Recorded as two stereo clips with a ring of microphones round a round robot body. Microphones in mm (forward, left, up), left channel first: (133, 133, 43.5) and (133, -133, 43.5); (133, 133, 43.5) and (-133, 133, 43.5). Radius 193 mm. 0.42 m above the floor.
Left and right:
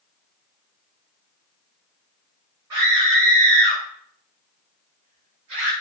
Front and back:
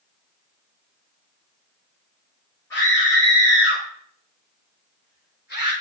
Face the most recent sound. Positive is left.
turn(degrees=-95)